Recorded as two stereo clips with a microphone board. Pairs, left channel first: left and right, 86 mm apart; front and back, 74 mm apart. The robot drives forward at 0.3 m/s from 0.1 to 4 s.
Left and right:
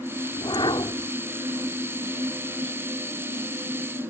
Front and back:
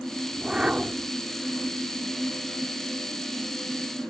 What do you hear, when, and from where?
0.3 s a whoosh: 100° left; by 1.1 s 105° left